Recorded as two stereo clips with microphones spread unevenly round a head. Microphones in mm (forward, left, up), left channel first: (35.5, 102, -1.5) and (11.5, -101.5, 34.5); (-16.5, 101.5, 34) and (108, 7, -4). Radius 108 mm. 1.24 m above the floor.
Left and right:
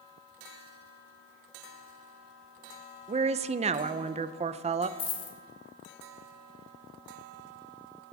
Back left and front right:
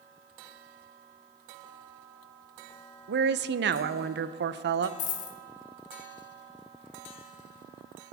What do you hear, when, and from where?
3.1 s a woman speaking: 35° right, 0.6 m
5.0 s a dropped coin: 155° left, 1.1 m